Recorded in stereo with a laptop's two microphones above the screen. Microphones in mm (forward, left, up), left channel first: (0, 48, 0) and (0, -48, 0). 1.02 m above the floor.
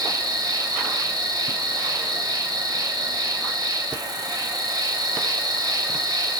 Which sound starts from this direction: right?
An insect, at 0.0 s.